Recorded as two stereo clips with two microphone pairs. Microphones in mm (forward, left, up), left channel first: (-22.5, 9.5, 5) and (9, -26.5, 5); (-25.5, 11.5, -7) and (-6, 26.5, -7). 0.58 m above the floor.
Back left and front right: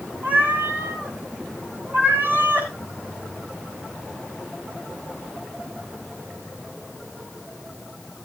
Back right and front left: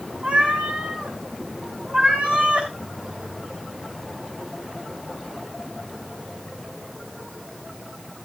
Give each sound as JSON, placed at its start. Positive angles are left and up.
{"t": 0.2, "sound": "a cat meowing", "azimuth_deg": 0, "distance_m": 4.0}